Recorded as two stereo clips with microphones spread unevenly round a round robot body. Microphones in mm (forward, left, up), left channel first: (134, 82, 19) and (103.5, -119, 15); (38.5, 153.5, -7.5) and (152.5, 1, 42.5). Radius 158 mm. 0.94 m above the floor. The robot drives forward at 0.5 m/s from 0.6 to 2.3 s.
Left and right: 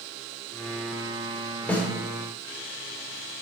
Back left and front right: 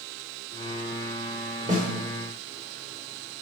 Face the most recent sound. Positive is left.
turn(degrees=0)